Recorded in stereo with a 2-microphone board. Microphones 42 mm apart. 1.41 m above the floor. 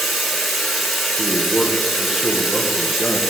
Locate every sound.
0.0 s running water: 5° right (ahead or behind), 1.8 m
1.2 s a man speaking: 15° right (ahead or behind), 1.0 m